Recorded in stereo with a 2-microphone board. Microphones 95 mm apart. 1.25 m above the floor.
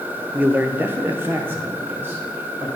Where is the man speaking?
20° right (ahead or behind), 0.5 m.